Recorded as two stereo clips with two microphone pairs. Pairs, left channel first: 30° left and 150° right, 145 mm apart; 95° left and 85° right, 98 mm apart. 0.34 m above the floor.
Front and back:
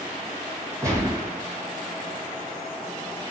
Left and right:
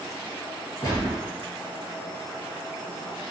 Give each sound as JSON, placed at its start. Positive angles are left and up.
{"t": 0.8, "sound": "a gunshot", "azimuth_deg": 145, "distance_m": 3.0}